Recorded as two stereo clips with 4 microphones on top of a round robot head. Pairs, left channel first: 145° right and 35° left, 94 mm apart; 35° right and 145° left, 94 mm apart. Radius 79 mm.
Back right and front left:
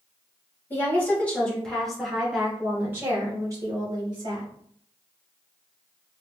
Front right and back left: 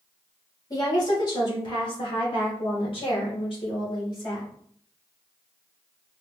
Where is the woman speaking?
80° right, 2.5 m; by 4.5 s straight ahead, 2.5 m.